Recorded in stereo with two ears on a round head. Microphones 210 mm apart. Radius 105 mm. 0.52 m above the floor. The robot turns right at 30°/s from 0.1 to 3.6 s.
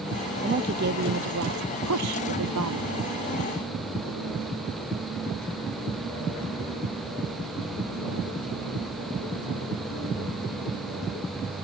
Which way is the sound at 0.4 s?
145° right.